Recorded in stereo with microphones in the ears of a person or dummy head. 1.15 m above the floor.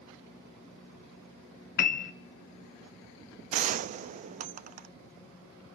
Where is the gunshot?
40° right (ahead or behind), 0.6 m.